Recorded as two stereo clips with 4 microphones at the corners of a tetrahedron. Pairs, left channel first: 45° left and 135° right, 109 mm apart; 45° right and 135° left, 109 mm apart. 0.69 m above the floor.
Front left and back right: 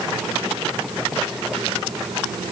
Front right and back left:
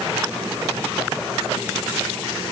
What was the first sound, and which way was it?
Only background noise.